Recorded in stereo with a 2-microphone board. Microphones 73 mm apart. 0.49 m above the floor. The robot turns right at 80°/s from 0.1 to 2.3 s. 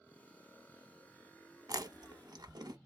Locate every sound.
1.7 s chewing: 55° right (ahead or behind), 0.7 m; by 2.8 s 65° right (ahead or behind), 0.7 m